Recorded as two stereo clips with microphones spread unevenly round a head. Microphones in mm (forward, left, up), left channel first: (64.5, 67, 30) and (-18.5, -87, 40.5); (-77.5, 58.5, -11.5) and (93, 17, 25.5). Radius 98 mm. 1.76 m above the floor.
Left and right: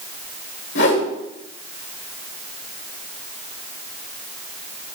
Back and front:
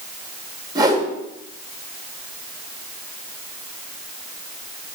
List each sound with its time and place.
0.8 s a whoosh: 45° left, 1.9 m